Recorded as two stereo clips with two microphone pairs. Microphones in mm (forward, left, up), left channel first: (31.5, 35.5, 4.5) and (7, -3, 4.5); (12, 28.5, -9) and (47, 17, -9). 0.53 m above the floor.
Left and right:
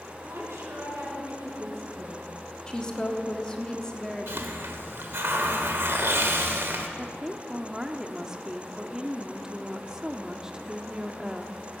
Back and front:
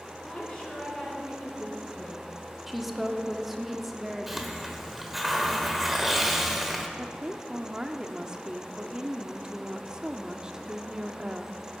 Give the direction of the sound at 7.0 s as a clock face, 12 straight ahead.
2 o'clock.